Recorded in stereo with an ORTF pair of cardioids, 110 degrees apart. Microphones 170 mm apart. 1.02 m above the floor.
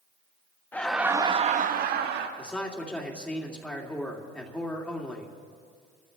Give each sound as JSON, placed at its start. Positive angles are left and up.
{"t": 0.7, "sound": "laughter", "azimuth_deg": 10, "distance_m": 1.1}
{"t": 2.4, "sound": "a man speaking", "azimuth_deg": 5, "distance_m": 2.5}